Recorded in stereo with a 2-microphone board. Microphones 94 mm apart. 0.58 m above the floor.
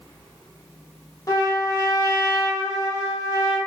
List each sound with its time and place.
1.3 s a trumpet: 35° left (ahead or behind), 0.7 m